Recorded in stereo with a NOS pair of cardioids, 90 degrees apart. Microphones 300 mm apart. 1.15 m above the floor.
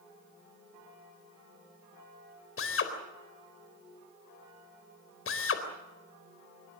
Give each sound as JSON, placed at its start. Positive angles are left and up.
{"t": 2.6, "sound": "a drill", "azimuth_deg": 45, "distance_m": 4.0}